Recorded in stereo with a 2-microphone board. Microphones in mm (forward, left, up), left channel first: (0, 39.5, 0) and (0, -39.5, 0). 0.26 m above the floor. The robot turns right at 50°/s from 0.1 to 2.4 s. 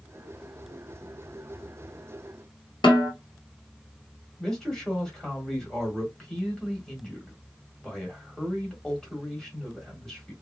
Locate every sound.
2.8 s a snare drum: 85° left, 1.5 m
4.4 s a man speaking: 10° left (ahead or behind), 1.4 m